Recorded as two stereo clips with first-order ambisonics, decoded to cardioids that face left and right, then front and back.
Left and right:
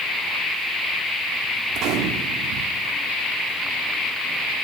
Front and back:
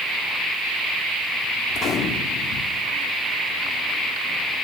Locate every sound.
1.7 s a gunshot: 55° right, 1.0 m